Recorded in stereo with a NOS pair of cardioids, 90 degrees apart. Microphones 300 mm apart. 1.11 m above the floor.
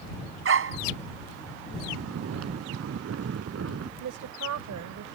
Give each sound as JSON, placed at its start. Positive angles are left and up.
{"t": 0.5, "sound": "a dog barking", "azimuth_deg": -45}
{"t": 1.9, "sound": "snoring", "azimuth_deg": -50}
{"t": 4.0, "sound": "a woman speaking", "azimuth_deg": -70}